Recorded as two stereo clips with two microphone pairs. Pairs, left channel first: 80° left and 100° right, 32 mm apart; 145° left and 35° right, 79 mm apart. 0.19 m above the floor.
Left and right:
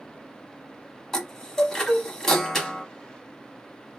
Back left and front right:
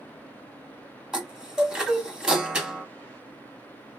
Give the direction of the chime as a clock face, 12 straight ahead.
11 o'clock.